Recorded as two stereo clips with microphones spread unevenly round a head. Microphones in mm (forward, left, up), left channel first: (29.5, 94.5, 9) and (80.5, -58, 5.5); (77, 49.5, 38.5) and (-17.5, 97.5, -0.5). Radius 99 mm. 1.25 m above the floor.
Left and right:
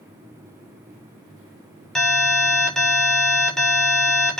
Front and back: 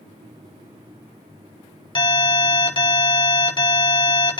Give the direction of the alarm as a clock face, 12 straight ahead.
11 o'clock.